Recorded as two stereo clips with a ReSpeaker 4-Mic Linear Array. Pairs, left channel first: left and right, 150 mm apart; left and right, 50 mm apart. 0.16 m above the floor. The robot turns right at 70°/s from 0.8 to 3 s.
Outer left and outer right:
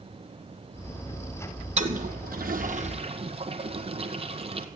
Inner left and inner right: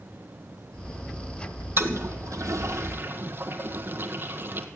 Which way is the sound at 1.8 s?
50° right (ahead or behind).